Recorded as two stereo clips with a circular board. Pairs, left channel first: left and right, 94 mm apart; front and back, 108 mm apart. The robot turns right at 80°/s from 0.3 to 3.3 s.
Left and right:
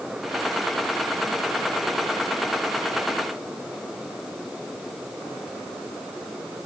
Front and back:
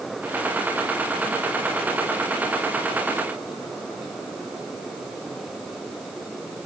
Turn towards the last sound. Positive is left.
No sound to turn to.